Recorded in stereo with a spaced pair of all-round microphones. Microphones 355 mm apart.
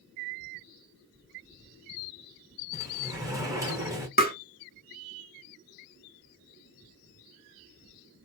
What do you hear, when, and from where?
2.7 s a sliding door: 10° right (ahead or behind), 1.0 m
4.2 s tapping: 25° left (ahead or behind), 0.7 m